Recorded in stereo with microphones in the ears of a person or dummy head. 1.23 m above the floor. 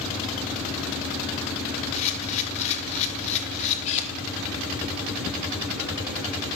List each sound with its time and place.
1.9 s a camera shutter: 35° left (ahead or behind), 1.8 m